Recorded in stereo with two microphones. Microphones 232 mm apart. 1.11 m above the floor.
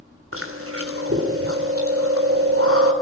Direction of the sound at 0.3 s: 90° right.